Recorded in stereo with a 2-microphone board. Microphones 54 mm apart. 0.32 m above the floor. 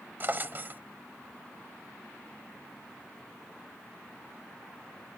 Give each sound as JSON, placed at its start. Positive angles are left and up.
{"t": 0.2, "sound": "a drawer", "side_deg": -40}